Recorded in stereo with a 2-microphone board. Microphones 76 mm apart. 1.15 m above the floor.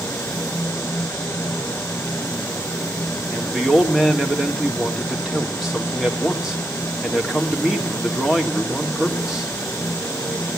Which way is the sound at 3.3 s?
10° right (ahead or behind).